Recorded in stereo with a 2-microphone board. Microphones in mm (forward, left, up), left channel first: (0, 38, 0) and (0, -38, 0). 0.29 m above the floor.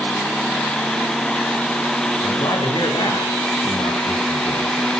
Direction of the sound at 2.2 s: 70° left (ahead or behind).